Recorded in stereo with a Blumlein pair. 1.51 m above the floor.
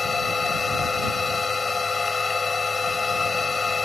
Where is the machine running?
15° left.